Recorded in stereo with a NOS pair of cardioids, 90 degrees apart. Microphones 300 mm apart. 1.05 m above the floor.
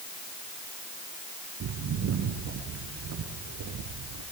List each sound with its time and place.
1.6 s footsteps: 65° right, 6.5 m; by 4.2 s 70° right, 9 m